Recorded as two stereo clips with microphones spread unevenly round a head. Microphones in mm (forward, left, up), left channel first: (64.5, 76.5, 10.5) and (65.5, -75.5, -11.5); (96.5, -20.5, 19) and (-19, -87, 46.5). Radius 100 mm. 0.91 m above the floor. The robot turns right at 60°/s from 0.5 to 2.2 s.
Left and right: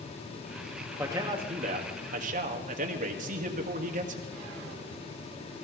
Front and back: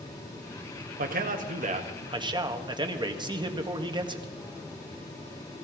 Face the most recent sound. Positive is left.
turn(degrees=-90)